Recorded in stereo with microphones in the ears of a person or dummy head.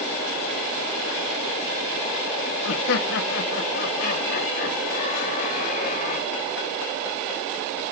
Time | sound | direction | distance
2.6 | laughter | 65° left (ahead or behind) | 1.7 m